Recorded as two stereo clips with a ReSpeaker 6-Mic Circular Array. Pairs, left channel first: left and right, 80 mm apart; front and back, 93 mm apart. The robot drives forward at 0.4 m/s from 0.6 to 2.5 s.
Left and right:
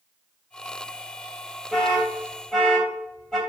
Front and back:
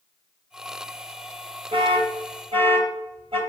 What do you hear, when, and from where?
1.7 s an alarm: 175° left, 2.5 m